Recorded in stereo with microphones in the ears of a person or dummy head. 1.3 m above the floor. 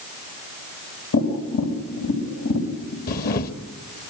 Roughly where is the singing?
I don't hear singing.